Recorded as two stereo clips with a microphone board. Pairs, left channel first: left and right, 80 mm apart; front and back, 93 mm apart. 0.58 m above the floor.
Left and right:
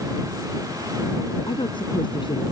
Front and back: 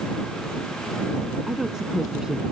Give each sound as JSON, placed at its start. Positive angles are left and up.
{"t": 1.5, "sound": "a woman speaking", "azimuth_deg": 95}